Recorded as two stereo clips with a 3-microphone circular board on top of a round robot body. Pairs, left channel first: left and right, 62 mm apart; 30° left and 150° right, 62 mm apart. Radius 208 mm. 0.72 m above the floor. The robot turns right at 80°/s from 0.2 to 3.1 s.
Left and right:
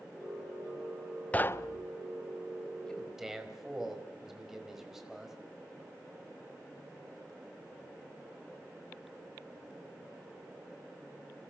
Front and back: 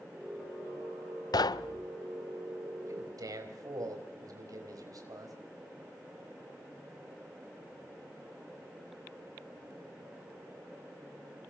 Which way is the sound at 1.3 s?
20° left.